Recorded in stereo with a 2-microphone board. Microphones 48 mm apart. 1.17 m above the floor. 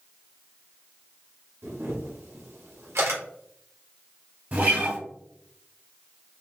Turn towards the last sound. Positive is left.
turn(degrees=-35)  # may be behind; listen again after turning